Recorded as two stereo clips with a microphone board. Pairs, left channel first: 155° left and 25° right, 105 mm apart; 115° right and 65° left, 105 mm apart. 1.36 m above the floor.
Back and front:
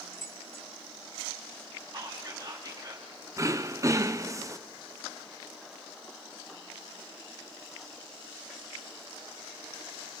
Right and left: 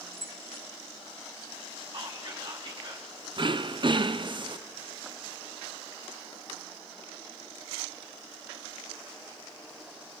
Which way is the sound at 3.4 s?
30° left.